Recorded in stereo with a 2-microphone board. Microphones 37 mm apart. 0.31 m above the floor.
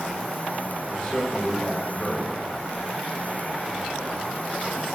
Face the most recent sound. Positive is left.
turn(degrees=25)  # may be behind; listen again after turning